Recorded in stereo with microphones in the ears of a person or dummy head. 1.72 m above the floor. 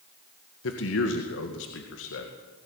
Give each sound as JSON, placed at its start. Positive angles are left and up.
{"t": 0.6, "sound": "a man speaking", "side_deg": 80, "distance_m": 2.0}